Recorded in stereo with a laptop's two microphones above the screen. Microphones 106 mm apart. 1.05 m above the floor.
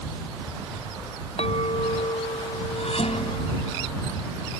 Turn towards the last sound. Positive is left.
turn(degrees=75)  # may be behind; listen again after turning